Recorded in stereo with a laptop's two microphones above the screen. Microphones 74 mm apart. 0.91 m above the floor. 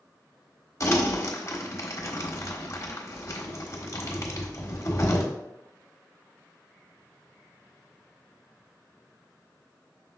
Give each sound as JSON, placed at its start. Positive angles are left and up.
{"t": 0.8, "sound": "crumpling", "side_deg": 45, "distance_m": 1.4}